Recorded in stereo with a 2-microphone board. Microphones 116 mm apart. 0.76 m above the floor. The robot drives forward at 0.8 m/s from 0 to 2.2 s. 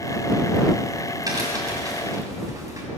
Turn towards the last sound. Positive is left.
turn(degrees=-30)  # may be behind; listen again after turning